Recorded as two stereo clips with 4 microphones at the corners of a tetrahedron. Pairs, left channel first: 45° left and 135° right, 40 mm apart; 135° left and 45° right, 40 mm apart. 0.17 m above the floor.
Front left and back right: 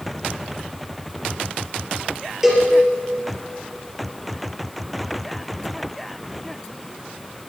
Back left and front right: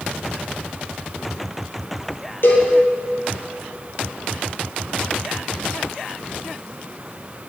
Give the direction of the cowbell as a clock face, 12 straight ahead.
7 o'clock.